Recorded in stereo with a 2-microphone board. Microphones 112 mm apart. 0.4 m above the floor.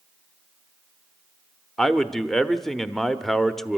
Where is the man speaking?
5° left (ahead or behind), 0.8 m.